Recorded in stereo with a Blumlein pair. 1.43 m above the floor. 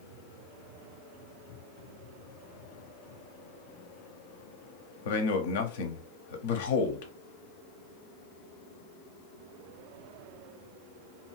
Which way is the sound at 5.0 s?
55° left.